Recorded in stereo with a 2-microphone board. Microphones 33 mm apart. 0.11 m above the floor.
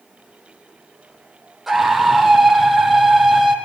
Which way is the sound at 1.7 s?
5° right (ahead or behind).